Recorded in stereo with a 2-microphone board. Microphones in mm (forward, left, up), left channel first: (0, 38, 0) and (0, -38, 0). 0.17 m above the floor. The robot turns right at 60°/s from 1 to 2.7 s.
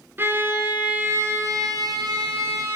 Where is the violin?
145° right, 0.8 m; by 2.8 s 45° right, 0.8 m.